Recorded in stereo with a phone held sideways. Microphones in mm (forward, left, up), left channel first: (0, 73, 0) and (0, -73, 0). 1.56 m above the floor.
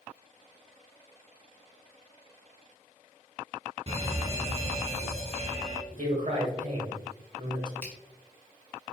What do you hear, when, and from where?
3.9 s an alarm: 45° right (ahead or behind), 0.8 m
5.9 s a man speaking: 55° right (ahead or behind), 1.2 m
7.8 s a finger snap: 15° left (ahead or behind), 0.9 m